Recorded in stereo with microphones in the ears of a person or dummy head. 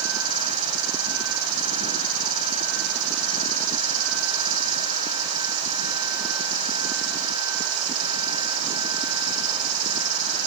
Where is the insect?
45° right (ahead or behind), 1.5 m.